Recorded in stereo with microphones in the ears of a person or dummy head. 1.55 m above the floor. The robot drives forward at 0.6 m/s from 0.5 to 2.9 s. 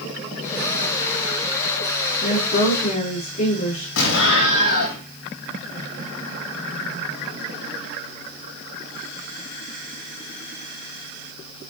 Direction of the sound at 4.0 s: 65° left (ahead or behind).